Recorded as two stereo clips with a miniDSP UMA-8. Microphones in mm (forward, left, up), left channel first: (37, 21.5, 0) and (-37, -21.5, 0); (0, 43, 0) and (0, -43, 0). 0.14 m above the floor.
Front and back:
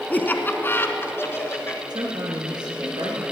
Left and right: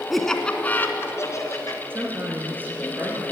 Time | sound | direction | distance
0.1 | laughter | straight ahead | 1.1 m
1.9 | a woman speaking | 150° right | 2.5 m